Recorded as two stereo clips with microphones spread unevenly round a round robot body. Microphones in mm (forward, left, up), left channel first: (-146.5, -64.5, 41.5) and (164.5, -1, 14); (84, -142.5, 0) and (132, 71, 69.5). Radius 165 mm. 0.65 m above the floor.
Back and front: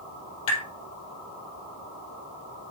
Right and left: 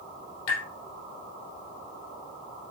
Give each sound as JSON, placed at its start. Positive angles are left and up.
{"t": 0.5, "sound": "tapping", "azimuth_deg": -130, "distance_m": 4.0}